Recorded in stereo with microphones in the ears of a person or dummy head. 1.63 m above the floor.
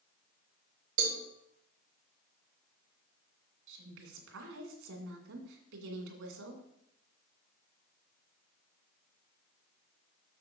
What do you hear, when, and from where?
1.0 s a cowbell: 75° right (ahead or behind), 1.9 m
3.7 s a woman speaking: 80° right, 2.5 m